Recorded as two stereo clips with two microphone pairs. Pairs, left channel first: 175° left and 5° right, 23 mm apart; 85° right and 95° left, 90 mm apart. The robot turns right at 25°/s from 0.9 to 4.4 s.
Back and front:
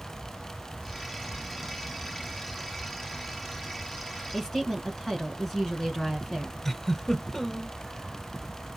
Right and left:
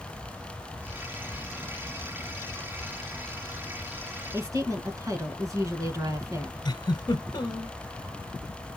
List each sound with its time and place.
4.3 s a woman speaking: 110° left, 1.7 m
6.7 s a giggle: 110° right, 0.9 m